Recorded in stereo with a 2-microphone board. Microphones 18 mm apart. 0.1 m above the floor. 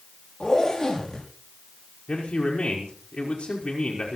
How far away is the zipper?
About 6.5 m.